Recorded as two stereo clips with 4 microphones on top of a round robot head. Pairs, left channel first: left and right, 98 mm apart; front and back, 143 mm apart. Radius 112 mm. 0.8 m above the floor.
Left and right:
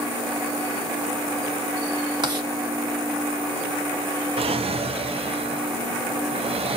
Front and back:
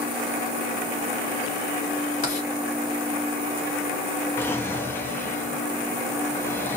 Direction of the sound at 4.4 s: 75° right.